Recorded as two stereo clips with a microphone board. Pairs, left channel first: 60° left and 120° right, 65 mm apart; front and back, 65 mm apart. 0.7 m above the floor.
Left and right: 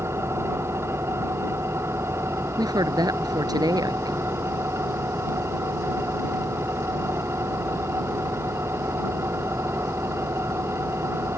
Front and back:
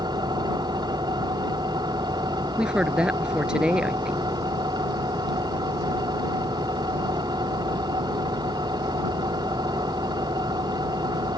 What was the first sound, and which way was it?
An engine running, 170° right.